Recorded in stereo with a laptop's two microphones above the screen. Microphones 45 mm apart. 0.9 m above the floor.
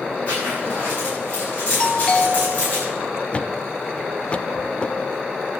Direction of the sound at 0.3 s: 30° left (ahead or behind).